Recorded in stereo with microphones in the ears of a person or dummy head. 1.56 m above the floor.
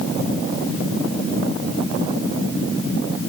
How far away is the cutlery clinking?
I don't hear cutlery clinking.